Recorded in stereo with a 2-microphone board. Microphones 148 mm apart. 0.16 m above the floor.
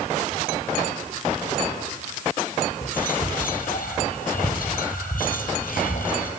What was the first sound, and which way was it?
Whispering, 70° left (ahead or behind).